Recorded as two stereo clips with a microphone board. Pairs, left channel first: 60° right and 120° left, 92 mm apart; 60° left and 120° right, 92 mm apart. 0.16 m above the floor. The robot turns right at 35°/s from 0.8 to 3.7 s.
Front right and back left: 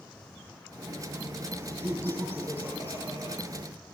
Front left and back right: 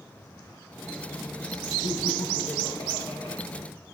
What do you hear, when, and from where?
1.8 s laughter: 35° left, 3 m; by 3.4 s 90° left, 3 m